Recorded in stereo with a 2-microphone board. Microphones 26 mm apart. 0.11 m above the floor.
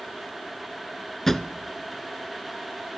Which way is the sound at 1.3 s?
10° left (ahead or behind).